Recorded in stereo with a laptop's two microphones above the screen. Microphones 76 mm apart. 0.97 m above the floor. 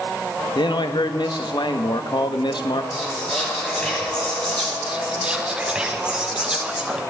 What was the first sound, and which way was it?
A man speaking, 75° left (ahead or behind).